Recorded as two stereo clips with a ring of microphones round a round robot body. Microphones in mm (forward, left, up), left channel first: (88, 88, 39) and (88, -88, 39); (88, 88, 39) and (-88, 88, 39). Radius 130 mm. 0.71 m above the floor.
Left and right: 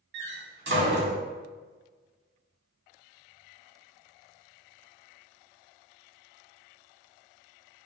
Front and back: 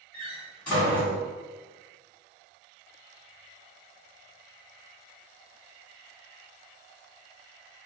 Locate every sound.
0.1 s a door slam: 85° right, 1.4 m